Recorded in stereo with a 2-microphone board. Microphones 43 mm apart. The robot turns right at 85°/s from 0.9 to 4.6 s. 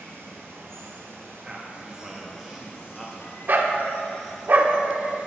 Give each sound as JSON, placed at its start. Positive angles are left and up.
{"t": 0.0, "sound": "running water", "azimuth_deg": -115, "distance_m": 1.8}
{"t": 1.4, "sound": "a man speaking", "side_deg": -25, "distance_m": 0.6}
{"t": 3.5, "sound": "a dog barking", "side_deg": -50, "distance_m": 0.5}